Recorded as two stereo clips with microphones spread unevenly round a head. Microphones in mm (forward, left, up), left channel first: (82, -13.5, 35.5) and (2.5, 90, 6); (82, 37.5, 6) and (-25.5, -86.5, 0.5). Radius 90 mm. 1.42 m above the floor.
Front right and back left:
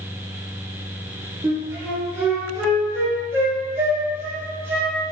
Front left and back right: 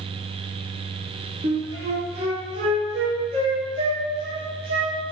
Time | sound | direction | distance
1.4 | a flute | 175° right | 0.6 m